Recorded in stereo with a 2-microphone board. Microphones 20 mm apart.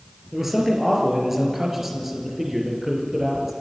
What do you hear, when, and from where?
0.3 s a man speaking: 10° right (ahead or behind), 4.5 m